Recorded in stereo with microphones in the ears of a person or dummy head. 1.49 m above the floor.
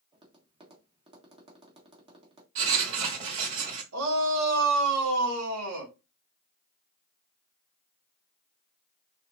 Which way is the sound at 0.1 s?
25° right (ahead or behind).